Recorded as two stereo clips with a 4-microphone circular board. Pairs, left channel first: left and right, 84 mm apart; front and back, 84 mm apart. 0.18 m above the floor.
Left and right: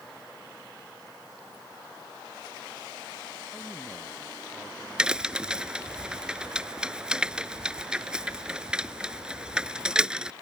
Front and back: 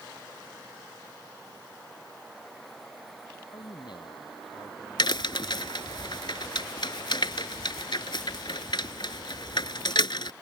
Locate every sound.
3.5 s a man speaking: 25° left
5.0 s a crack: 10° right